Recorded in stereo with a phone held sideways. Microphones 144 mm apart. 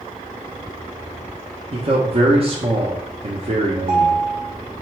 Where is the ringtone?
45° right (ahead or behind), 1.0 m.